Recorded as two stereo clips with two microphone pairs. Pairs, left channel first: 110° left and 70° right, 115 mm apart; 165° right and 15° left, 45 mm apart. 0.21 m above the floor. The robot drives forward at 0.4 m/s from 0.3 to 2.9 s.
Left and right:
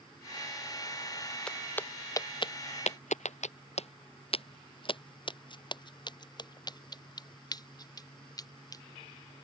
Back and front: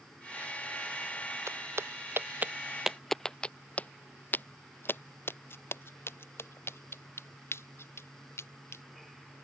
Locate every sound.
1.5 s footsteps: 30° left; by 8.8 s 170° left